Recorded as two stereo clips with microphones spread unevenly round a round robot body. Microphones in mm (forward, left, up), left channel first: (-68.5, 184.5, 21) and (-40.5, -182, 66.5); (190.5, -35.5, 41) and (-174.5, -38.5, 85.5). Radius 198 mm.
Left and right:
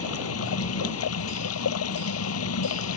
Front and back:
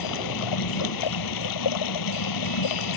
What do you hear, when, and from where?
0.0 s running water: 40° left